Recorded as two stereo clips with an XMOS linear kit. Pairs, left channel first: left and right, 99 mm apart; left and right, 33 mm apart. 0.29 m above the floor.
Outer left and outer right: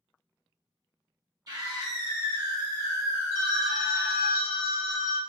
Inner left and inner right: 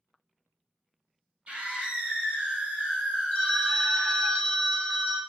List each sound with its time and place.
1.5 s a scream: 40° right (ahead or behind), 1.2 m; by 4.3 s 20° right (ahead or behind), 1.6 m
3.3 s a phone ringing: 30° left (ahead or behind), 0.9 m